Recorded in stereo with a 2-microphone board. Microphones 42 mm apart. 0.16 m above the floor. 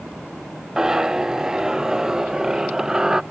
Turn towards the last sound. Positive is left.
turn(degrees=-10)  # may be behind; listen again after turning